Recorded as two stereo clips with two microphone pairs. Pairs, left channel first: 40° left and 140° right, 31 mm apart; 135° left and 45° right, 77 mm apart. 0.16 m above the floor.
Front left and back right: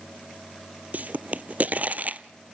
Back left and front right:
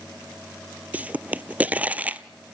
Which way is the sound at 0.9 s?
115° right.